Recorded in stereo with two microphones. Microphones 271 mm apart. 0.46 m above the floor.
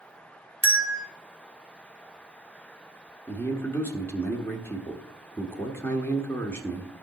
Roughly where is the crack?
No crack in this recording.